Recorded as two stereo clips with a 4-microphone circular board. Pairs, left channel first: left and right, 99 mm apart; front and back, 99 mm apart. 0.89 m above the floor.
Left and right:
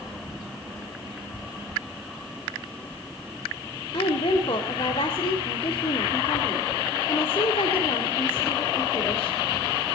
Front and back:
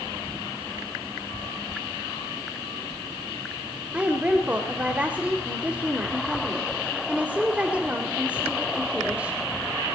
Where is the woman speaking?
105° left, 2 m.